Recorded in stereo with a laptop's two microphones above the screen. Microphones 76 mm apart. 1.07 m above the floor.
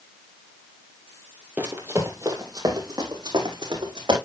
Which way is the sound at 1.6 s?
20° right (ahead or behind).